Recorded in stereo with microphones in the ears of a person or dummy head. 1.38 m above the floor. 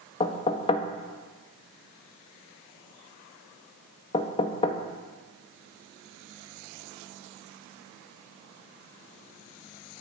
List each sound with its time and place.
0.2 s knocking: 30° left (ahead or behind), 1.4 m